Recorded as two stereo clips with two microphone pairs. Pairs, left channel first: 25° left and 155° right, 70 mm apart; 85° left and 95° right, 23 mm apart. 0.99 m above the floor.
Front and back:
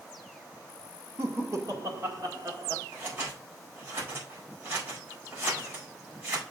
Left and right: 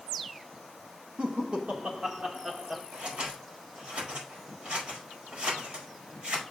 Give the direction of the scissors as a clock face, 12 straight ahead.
3 o'clock.